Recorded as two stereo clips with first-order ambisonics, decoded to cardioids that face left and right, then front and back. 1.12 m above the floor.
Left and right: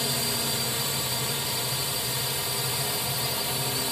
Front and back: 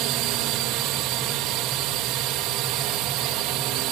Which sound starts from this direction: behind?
A drone, at 0.0 s.